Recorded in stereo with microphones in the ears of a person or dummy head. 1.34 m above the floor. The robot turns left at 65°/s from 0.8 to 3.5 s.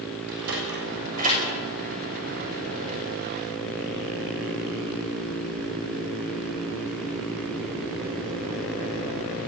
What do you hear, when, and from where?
0.3 s a sliding door: 70° right (ahead or behind), 7 m; by 1.4 s 30° right (ahead or behind), 7 m